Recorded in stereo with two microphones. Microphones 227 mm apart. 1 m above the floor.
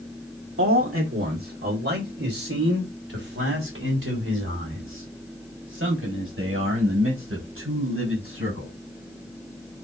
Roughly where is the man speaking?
Right.